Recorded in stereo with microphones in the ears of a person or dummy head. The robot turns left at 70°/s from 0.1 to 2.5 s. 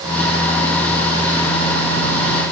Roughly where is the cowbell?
No cowbell in this recording.